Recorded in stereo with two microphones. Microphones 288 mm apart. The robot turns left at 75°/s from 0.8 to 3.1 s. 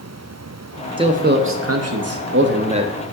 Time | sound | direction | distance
1.0 | a man speaking | 20° right | 0.8 m